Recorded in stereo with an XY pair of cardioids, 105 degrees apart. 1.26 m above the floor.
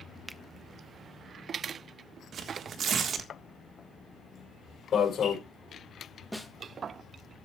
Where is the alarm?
55° left, 4.5 m.